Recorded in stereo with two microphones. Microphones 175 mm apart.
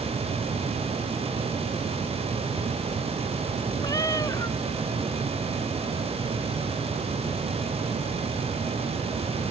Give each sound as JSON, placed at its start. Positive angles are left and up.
{"t": 3.8, "sound": "a cat meowing", "side_deg": 20}